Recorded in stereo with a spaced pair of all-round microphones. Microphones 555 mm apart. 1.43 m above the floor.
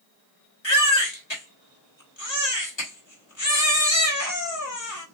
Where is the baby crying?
50° left (ahead or behind), 1.3 m.